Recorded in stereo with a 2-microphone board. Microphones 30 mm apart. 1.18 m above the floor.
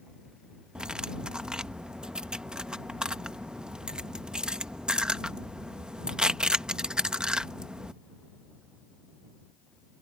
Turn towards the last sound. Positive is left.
turn(degrees=-30)  # may be behind; listen again after turning